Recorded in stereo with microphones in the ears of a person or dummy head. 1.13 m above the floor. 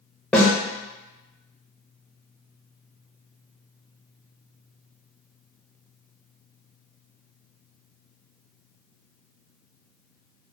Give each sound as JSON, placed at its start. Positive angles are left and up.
{"t": 0.3, "sound": "a snare drum", "side_deg": 5, "distance_m": 0.7}